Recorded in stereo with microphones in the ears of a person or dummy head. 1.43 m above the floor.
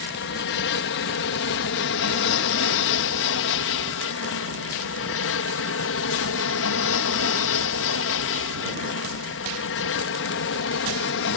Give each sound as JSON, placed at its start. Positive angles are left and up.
{"t": 0.0, "sound": "an aircraft", "side_deg": 60}